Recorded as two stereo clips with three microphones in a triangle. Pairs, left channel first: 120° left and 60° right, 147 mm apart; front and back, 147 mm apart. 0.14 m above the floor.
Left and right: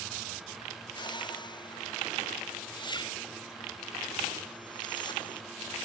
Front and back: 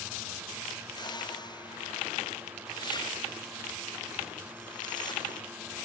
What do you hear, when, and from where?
0.9 s a whoosh: 60° left